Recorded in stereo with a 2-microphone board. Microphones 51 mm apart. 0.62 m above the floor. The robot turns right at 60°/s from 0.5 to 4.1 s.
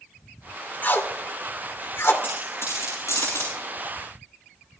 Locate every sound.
0.8 s tape being pulled: 40° left (ahead or behind), 2 m; by 2.1 s 50° left (ahead or behind), 2 m
2.2 s a dropped coin: 40° left (ahead or behind), 10 m; by 3.5 s 60° left (ahead or behind), 10 m